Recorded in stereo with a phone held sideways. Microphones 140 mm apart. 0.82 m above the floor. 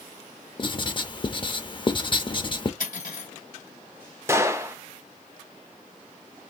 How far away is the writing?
About 0.5 m.